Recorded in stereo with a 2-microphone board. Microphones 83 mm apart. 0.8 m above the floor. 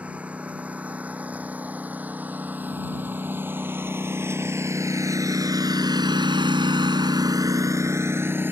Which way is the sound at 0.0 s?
15° right (ahead or behind).